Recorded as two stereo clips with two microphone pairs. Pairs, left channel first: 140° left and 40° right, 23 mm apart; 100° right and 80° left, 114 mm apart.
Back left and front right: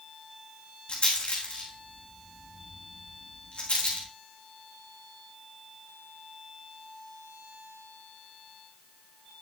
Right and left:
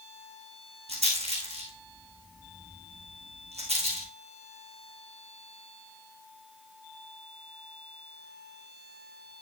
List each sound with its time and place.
0.9 s a rattle: 100° left, 3.5 m